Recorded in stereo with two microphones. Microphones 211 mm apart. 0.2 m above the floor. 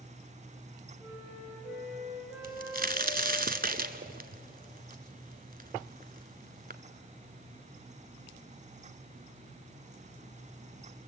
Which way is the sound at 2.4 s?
45° right (ahead or behind).